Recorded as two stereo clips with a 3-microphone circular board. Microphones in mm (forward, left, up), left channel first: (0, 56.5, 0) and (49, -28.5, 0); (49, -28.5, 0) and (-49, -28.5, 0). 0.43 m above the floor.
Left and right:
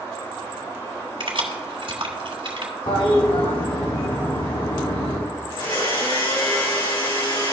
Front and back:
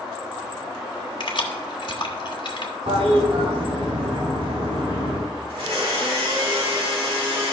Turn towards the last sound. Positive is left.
turn(degrees=150)